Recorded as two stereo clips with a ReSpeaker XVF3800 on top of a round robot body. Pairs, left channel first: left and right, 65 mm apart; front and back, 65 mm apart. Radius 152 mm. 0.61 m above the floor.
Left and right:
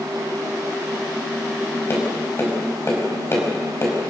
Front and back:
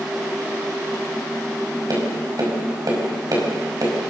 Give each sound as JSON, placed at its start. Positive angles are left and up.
{"t": 1.9, "sound": "tapping", "azimuth_deg": 145, "distance_m": 5.0}